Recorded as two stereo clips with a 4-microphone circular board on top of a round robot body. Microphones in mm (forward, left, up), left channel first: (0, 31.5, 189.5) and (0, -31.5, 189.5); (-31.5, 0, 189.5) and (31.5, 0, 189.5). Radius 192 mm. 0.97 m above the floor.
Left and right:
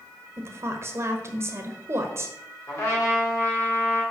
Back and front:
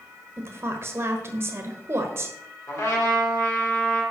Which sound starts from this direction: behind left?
A trumpet, at 2.7 s.